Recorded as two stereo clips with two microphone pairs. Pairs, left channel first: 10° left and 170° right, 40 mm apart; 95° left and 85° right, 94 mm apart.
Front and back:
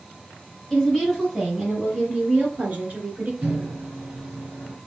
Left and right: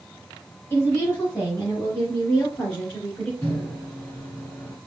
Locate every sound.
0.7 s a woman speaking: 75° left, 1.5 m; by 3.3 s 165° left, 1.9 m
3.4 s a microwave: 155° left, 1.8 m